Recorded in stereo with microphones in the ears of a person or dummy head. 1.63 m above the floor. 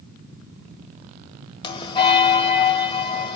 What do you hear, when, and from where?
1.6 s a bell: 25° left (ahead or behind), 1.7 m